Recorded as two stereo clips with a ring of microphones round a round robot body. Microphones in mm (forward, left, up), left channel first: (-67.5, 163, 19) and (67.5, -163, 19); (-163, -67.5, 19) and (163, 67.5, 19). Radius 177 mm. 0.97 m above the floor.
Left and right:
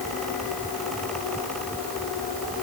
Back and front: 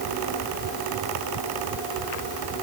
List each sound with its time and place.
Only background noise.